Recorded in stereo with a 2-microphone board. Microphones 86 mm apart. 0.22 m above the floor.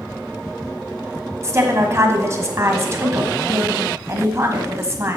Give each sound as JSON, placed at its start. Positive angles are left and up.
{"t": 1.4, "sound": "a woman speaking", "side_deg": -35, "distance_m": 1.4}